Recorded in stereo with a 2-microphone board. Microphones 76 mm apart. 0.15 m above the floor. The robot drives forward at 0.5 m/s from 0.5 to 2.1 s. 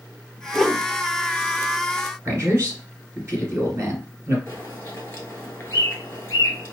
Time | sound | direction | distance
0.5 | a whoosh | 5° left (ahead or behind) | 0.6 m
2.2 | a man speaking | 45° right (ahead or behind) | 1.7 m
4.5 | a bird | 30° left (ahead or behind) | 1.2 m